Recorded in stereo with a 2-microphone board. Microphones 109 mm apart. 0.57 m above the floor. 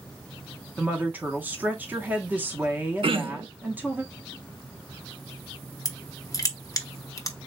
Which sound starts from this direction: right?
Throat clearing, at 3.0 s.